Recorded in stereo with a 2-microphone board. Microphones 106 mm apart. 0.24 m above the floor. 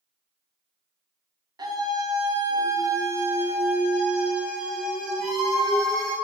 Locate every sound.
1.6 s a scream: 40° right (ahead or behind), 2 m; by 6.2 s 10° left (ahead or behind), 3.5 m